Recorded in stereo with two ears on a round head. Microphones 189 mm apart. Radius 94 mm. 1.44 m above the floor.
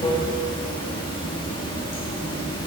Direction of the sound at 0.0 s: 25° left (ahead or behind).